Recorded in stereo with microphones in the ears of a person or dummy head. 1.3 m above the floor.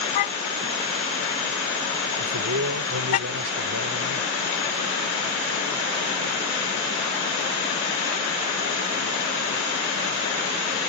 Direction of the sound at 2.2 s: 65° right (ahead or behind).